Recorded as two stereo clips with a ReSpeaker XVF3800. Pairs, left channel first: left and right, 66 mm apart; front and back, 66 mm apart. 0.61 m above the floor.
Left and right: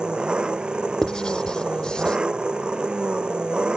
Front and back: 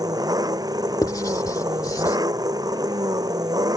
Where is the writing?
10° left.